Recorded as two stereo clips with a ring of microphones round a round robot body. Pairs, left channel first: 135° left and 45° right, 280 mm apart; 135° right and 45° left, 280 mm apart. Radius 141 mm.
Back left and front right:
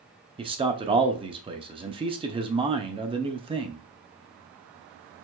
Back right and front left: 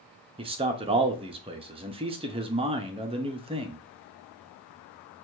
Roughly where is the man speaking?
Ahead.